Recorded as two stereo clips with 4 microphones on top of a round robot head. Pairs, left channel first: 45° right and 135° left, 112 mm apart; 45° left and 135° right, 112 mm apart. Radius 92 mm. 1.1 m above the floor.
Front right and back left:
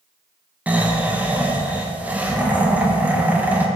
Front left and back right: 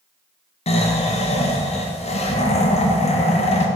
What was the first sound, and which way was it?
Snoring, 60° left.